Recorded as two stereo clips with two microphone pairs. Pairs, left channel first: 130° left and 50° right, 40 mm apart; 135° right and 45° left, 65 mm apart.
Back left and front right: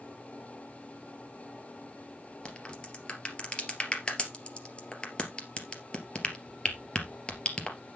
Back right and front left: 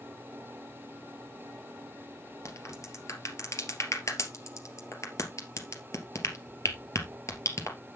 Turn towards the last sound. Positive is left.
turn(degrees=-165)